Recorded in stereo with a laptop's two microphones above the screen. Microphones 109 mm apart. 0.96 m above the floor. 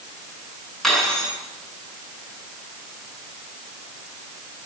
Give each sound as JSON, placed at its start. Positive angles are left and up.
{"t": 0.8, "sound": "cutlery clinking", "side_deg": 5, "distance_m": 6.0}